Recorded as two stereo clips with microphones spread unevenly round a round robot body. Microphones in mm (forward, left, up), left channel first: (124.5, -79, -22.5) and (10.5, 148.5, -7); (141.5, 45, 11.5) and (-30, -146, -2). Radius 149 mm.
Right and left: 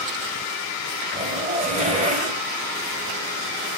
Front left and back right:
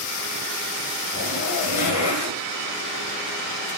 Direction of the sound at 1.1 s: 55° left.